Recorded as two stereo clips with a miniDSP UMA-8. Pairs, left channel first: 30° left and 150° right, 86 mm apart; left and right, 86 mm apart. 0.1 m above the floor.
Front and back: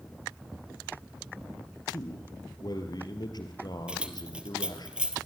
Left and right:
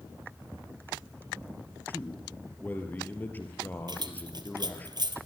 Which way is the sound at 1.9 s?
25° left.